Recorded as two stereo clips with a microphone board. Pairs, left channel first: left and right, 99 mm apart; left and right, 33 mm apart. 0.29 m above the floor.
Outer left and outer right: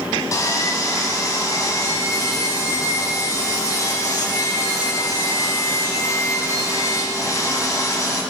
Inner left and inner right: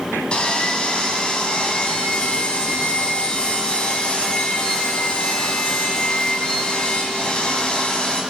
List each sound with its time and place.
0.3 s sawing: 35° left (ahead or behind), 2 m